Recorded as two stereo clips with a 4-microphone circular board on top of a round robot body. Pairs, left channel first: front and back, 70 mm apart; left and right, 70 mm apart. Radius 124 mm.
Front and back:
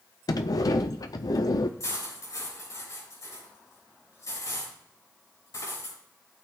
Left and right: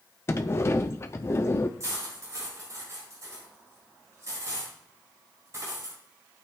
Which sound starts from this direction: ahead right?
Cutlery clinking, at 1.8 s.